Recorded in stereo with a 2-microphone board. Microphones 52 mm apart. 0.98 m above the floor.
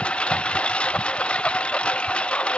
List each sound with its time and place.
0.0 s a lawn mower: 20° left (ahead or behind)